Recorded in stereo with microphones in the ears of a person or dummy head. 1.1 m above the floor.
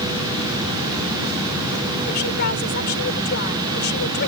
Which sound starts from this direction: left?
A woman speaking, at 2.0 s.